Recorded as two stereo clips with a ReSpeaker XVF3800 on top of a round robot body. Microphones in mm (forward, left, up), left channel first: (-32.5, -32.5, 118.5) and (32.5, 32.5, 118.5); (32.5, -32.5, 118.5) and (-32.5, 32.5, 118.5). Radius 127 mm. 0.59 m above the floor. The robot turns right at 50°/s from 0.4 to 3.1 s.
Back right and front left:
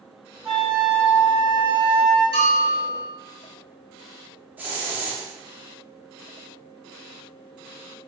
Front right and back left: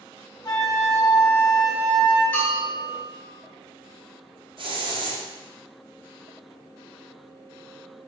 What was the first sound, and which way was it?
A flute, 40° right.